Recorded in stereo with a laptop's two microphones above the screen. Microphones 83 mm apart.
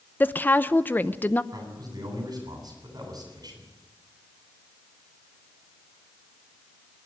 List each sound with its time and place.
0.2 s a woman speaking: 25° left (ahead or behind), 0.7 m
1.5 s a man speaking: 50° right (ahead or behind), 9 m